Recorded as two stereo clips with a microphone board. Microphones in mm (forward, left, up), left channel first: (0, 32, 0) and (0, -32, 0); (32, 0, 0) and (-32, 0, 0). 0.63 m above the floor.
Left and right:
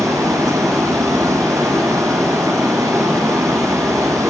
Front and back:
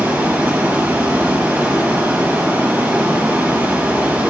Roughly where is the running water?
Behind right.